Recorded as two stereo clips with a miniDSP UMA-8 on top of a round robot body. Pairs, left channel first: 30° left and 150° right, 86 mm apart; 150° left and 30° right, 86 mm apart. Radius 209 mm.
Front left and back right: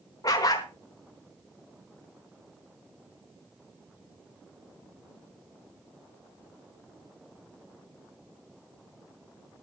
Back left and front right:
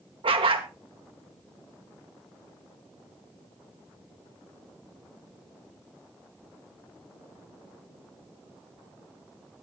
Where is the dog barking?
20° right, 1.2 m.